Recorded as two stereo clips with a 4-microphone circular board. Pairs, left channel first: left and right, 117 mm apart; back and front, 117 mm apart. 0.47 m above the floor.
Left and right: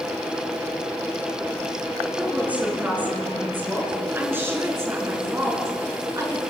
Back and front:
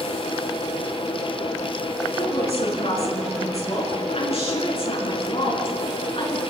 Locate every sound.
2.2 s a woman speaking: 165° right, 8 m; by 6.4 s 150° right, 7 m